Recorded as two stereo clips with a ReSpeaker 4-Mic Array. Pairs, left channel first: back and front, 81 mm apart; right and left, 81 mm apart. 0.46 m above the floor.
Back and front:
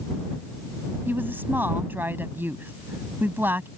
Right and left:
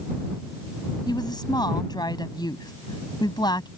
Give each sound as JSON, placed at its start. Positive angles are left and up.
{"t": 1.1, "sound": "a woman speaking", "azimuth_deg": -65}